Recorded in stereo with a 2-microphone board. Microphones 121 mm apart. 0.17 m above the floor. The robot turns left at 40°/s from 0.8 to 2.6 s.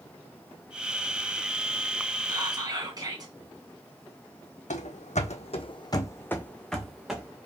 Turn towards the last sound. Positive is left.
turn(degrees=-10)  # may be behind; listen again after turning